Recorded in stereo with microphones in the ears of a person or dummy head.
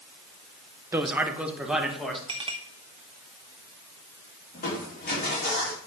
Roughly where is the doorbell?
No doorbell in this recording.